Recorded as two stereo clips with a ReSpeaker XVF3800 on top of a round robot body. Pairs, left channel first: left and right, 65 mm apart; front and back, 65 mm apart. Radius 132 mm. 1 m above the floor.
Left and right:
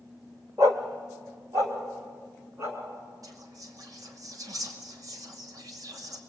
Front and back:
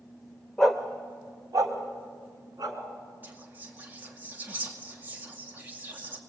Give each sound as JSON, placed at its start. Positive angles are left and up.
{"t": 0.6, "sound": "a dog barking", "azimuth_deg": -75, "distance_m": 0.7}
{"t": 3.2, "sound": "whispering", "azimuth_deg": -115, "distance_m": 2.5}